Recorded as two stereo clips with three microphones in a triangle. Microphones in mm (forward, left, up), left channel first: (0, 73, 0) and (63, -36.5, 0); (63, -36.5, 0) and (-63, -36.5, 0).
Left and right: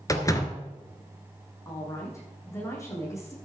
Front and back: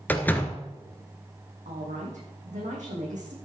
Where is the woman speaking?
175° right, 6 m.